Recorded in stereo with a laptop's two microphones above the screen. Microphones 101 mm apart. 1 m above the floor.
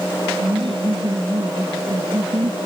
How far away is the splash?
I don't hear a splash.